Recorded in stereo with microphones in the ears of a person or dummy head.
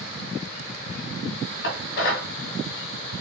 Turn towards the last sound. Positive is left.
turn(degrees=60)  # may be behind; listen again after turning